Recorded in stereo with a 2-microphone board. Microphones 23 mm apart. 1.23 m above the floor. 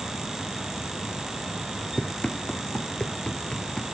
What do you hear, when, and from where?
2.0 s running footsteps: 45° left (ahead or behind)